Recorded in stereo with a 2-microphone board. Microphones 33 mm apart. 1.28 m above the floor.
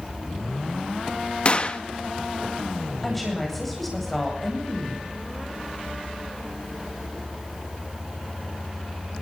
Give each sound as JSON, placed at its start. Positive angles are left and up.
{"t": 1.4, "sound": "a gunshot", "side_deg": 35, "distance_m": 1.2}
{"t": 3.0, "sound": "a woman speaking", "side_deg": 5, "distance_m": 9.0}